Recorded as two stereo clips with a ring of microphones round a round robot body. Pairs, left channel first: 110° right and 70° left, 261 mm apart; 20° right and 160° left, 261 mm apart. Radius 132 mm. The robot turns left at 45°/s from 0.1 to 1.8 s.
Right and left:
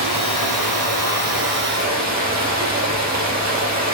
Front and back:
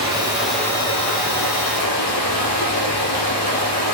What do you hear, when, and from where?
0.0 s running water: 85° left, 4.5 m; by 3.9 s 10° left, 4.5 m